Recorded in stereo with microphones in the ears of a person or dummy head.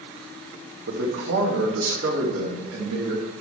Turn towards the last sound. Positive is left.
turn(degrees=-90)